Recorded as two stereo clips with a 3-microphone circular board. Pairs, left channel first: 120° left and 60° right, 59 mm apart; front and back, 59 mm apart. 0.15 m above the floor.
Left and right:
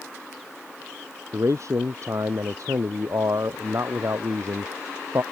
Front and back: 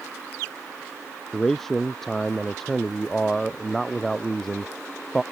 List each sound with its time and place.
1.3 s a man speaking: 85° right